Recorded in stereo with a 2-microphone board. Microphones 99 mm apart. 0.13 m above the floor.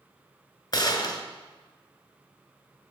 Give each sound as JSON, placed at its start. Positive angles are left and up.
{"t": 0.7, "sound": "a gunshot", "side_deg": 40, "distance_m": 1.1}